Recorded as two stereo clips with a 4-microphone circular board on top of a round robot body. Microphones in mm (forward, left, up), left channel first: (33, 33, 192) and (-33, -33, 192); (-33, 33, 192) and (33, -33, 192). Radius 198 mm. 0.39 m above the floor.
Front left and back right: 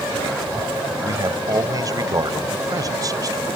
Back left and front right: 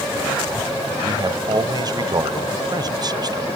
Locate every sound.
1.0 s a man speaking: 85° right